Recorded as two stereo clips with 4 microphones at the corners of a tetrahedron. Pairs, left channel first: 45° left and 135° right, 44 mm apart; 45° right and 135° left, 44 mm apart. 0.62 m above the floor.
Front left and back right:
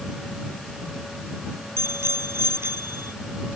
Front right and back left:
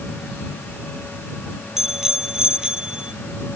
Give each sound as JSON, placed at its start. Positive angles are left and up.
{"t": 1.8, "sound": "a bicycle bell", "azimuth_deg": -145}